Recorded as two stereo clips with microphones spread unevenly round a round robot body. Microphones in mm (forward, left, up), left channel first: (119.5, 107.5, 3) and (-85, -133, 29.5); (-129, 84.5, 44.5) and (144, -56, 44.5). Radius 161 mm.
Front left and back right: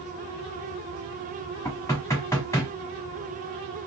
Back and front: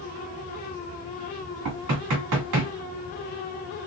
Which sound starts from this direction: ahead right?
Knocking, at 1.6 s.